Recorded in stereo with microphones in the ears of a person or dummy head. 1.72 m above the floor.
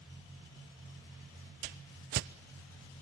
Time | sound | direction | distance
1.6 | a whoosh | 45° right (ahead or behind) | 0.6 m